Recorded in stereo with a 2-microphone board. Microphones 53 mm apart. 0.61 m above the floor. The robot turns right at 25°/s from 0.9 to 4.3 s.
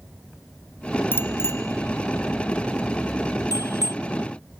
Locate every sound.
1.1 s a bicycle bell: 40° left (ahead or behind); by 3.9 s 70° left (ahead or behind)